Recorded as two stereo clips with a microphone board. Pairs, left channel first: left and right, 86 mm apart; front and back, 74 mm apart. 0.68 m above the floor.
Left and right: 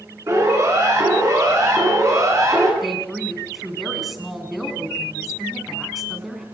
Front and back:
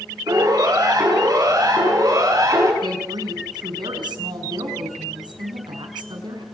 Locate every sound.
0.3 s a siren: 145° right, 9 m
2.8 s a woman speaking: straight behind, 5.5 m